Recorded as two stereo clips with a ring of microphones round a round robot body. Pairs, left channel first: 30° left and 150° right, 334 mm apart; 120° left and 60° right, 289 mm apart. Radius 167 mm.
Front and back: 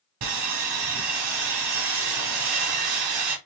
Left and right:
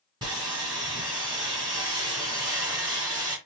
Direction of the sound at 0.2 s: 135° right.